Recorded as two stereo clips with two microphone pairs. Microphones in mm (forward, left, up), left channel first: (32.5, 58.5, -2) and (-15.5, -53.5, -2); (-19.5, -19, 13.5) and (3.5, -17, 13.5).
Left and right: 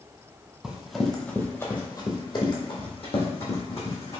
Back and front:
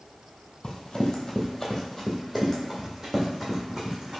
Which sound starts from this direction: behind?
Running footsteps, at 0.6 s.